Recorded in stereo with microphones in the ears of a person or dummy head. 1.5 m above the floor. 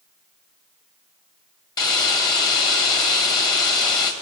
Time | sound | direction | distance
1.8 | a hiss | 25° left (ahead or behind) | 1.9 m